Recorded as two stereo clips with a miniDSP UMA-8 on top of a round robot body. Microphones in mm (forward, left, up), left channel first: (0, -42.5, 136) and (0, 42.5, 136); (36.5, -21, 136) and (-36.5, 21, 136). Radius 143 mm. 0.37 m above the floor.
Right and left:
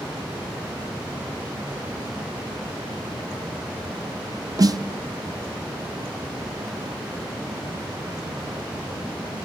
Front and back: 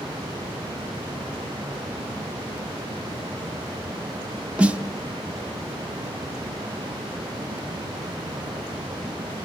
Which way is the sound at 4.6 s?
75° left.